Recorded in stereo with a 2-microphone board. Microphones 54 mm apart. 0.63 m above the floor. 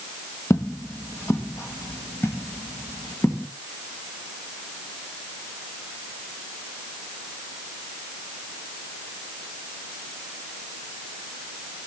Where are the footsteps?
65° left (ahead or behind), 1.4 m; by 3.5 s 40° left (ahead or behind), 3 m.